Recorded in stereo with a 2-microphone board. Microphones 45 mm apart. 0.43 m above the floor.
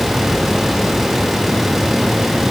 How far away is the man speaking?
I don't hear a man speaking.